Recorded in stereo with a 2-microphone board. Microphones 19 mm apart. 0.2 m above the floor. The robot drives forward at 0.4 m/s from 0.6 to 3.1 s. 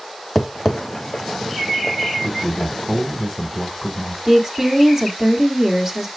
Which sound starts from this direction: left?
A man speaking, at 2.2 s.